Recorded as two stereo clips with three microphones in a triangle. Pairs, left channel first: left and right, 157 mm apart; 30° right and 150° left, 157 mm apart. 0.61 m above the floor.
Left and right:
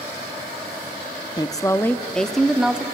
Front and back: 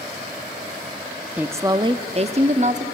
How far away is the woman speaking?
About 0.6 m.